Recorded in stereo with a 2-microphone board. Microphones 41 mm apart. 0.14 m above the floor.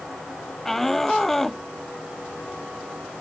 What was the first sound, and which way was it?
A shout, 5° left (ahead or behind).